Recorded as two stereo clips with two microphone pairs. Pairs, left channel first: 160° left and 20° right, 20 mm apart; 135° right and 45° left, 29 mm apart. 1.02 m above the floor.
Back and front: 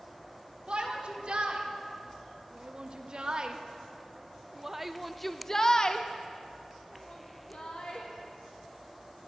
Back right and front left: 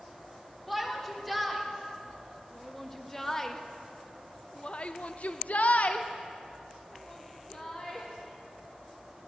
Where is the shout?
45° right, 3 m; by 8.1 s 165° left, 1.7 m.